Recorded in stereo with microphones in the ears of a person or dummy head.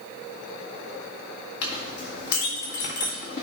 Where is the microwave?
I don't hear a microwave.